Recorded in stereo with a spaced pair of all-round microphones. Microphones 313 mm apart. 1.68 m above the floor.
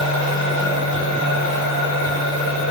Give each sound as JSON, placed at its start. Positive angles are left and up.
{"t": 0.0, "sound": "a machine running", "side_deg": -70, "distance_m": 2.0}